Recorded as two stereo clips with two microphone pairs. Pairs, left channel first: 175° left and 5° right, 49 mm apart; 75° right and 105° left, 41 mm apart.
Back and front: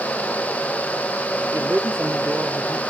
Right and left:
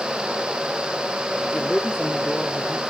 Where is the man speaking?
Straight ahead, 1.4 m.